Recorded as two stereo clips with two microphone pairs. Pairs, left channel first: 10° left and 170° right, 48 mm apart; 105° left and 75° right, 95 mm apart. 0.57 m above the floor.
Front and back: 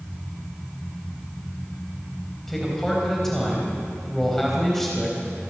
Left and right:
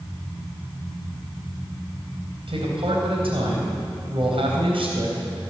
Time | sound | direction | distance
2.5 | a man speaking | 75° right | 3.5 m